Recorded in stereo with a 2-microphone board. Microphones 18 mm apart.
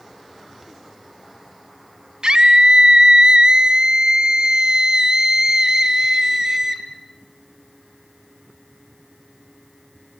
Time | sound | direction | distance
2.2 | a scream | 50° right (ahead or behind) | 2.5 m